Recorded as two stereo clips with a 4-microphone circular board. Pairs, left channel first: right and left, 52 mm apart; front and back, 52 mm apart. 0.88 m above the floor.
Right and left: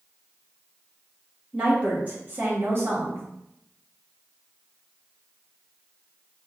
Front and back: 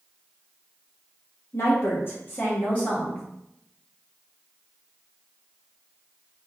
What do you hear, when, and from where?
1.5 s a woman speaking: 25° left, 1.6 m; by 3.2 s 65° left, 1.7 m